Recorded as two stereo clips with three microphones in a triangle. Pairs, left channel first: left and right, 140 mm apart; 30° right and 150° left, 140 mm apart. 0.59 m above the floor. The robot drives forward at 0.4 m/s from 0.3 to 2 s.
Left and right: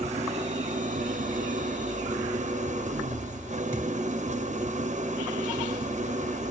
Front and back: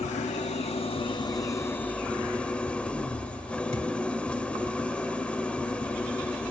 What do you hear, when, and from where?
0.0 s an engine running: 55° right, 0.8 m; by 6.5 s 110° right, 0.8 m
3.7 s a thud: 160° left, 3.5 m